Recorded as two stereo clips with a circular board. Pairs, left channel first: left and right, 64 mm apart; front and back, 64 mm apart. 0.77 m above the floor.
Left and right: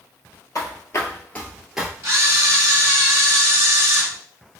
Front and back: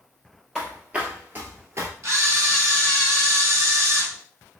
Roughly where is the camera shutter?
Behind right.